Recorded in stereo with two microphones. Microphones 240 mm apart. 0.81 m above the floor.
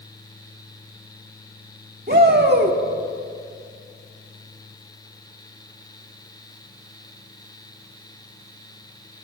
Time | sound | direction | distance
2.1 | a shout | 40° right (ahead or behind) | 1.8 m